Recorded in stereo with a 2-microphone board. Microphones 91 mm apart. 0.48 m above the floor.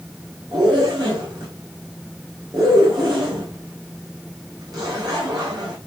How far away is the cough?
I don't hear a cough.